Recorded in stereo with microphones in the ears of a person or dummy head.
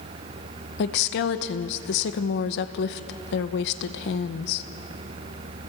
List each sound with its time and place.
0.8 s a woman speaking: 60° left (ahead or behind), 1.0 m